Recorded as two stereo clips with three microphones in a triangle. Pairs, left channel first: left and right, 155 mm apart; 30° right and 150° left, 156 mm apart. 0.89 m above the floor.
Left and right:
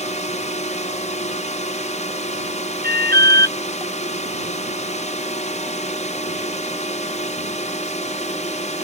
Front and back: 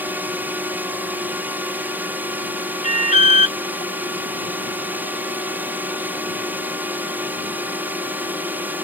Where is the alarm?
75° right.